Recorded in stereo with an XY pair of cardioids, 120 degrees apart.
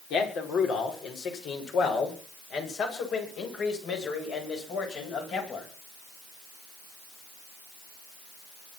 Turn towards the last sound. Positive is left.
turn(degrees=60)